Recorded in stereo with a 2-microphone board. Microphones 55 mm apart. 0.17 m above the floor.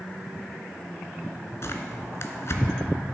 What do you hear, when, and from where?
1.6 s tearing paper: 55° left (ahead or behind), 1.1 m